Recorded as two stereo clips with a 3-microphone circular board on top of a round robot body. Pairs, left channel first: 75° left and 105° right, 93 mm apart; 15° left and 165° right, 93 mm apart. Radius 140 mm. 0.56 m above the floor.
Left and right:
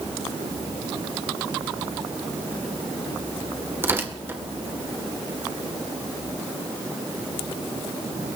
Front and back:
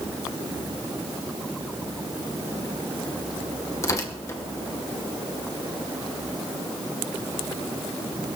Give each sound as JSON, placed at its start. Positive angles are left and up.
{"t": 3.8, "sound": "tearing paper", "azimuth_deg": -40, "distance_m": 2.0}